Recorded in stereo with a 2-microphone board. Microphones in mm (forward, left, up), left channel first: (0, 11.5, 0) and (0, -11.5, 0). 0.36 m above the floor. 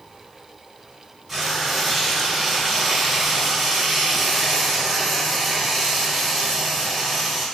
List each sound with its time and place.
1.3 s frying: 5° right (ahead or behind), 1.1 m